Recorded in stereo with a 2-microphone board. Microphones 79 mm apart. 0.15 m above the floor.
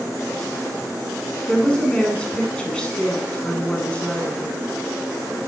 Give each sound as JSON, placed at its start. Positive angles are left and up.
{"t": 1.5, "sound": "a woman speaking", "side_deg": 15, "distance_m": 1.1}